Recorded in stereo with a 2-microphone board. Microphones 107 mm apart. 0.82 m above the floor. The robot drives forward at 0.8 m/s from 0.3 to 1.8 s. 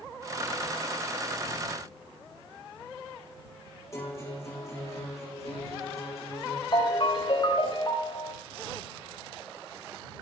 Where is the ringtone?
50° left (ahead or behind), 3.5 m.